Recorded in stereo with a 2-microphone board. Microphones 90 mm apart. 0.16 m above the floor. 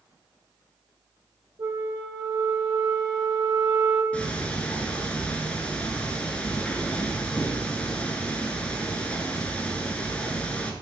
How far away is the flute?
About 2 m.